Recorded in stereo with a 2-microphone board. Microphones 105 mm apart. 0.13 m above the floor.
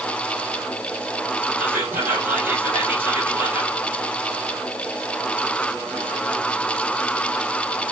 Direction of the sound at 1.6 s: 20° right (ahead or behind).